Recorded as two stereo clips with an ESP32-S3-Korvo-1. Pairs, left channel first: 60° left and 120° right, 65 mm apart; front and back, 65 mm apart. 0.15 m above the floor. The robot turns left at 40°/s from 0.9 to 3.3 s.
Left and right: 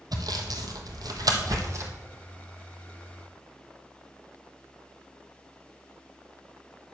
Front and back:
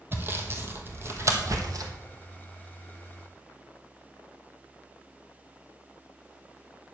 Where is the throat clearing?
No throat clearing in this recording.